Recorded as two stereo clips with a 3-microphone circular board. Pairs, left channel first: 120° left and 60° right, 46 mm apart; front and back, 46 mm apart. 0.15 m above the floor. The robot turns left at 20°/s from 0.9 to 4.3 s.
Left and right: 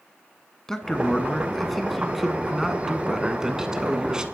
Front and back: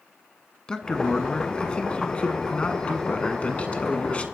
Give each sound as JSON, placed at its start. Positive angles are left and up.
{"t": 0.7, "sound": "a man speaking", "azimuth_deg": 55, "distance_m": 1.2}